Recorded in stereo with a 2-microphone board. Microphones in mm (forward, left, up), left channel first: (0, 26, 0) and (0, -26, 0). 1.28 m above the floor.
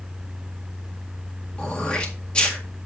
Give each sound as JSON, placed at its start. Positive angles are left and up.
{"t": 1.6, "sound": "throat clearing", "side_deg": 20, "distance_m": 1.7}